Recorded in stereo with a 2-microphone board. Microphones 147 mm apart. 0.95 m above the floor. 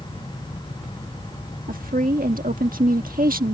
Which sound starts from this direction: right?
A woman speaking, at 1.7 s.